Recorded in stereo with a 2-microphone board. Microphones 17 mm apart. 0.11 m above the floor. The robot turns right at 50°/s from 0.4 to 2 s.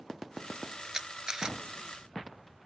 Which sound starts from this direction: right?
A camera shutter, at 0.9 s.